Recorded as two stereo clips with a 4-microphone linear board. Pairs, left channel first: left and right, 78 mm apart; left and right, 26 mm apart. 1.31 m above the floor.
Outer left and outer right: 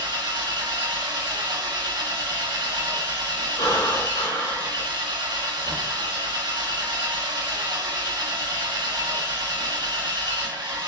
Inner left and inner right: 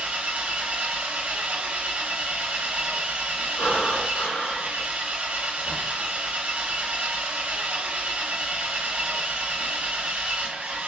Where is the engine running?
75° right (ahead or behind), 0.8 m.